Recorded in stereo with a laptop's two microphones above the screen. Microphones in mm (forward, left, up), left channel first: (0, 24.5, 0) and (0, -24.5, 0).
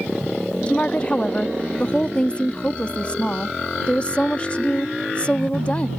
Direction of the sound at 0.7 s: 25° left (ahead or behind).